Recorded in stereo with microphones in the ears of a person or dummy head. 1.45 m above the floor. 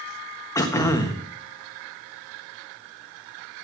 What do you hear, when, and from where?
0.6 s throat clearing: 20° left (ahead or behind), 1.3 m